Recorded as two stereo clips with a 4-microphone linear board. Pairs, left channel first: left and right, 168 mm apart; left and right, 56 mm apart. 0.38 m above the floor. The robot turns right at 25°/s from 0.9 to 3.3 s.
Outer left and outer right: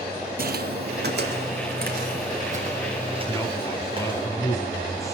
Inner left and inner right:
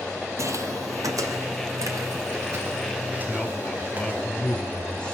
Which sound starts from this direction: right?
Footsteps, at 0.4 s.